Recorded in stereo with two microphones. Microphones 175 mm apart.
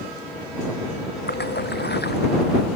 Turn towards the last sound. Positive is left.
turn(degrees=75)  # may be behind; listen again after turning